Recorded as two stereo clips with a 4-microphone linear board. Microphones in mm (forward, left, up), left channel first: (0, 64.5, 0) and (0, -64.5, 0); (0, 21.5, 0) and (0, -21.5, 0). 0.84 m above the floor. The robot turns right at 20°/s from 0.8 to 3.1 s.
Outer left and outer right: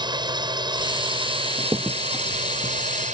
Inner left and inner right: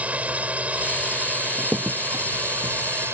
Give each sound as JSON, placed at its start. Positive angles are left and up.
{"t": 0.0, "sound": "a drone", "azimuth_deg": -140}
{"t": 1.6, "sound": "a crack", "side_deg": -20}